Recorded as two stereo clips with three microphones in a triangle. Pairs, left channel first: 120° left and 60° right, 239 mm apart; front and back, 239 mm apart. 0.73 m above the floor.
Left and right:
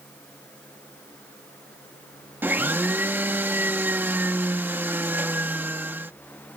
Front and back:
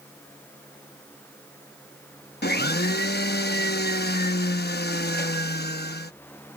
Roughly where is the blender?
Ahead.